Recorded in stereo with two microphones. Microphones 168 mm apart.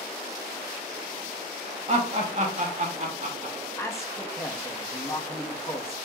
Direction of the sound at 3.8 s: 15° left (ahead or behind).